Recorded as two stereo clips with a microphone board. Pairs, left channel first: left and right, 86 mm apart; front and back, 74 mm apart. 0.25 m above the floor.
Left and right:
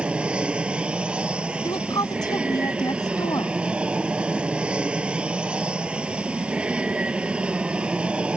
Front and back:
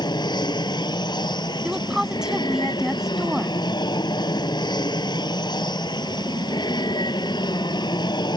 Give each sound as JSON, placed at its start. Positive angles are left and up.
{"t": 0.0, "sound": "an aircraft", "azimuth_deg": -10}
{"t": 1.6, "sound": "a woman speaking", "azimuth_deg": 100}